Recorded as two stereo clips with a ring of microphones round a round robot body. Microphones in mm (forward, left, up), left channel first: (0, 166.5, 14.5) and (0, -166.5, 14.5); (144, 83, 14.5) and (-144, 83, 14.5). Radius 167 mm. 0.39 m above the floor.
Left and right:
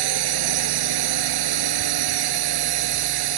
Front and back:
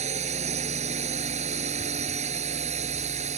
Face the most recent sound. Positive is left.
turn(degrees=-110)